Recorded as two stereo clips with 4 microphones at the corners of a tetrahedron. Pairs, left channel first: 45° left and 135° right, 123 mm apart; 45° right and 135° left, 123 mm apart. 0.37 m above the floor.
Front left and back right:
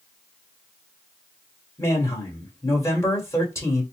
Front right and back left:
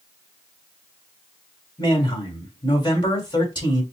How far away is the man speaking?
About 1.9 m.